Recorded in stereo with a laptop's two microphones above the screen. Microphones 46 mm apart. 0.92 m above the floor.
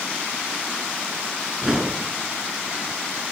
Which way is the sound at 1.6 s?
20° right (ahead or behind).